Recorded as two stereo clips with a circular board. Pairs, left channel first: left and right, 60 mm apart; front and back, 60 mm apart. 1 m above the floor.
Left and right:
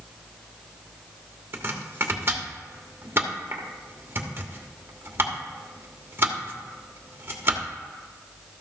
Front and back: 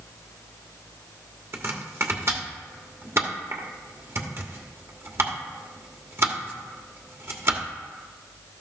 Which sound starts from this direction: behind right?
Chopping, at 1.5 s.